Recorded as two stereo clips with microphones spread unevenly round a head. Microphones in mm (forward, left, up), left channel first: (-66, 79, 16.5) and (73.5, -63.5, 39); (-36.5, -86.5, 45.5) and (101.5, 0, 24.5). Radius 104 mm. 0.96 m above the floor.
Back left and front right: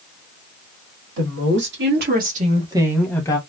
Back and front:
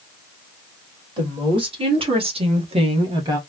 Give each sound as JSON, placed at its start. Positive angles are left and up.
{"t": 1.2, "sound": "a woman speaking", "azimuth_deg": -25, "distance_m": 2.0}